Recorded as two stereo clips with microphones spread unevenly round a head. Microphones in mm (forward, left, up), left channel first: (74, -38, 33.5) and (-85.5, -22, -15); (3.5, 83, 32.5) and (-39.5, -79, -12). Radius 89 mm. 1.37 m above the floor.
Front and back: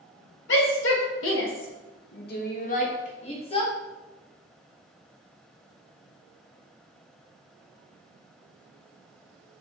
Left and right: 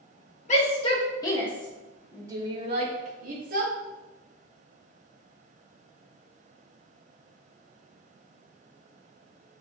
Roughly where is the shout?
Ahead.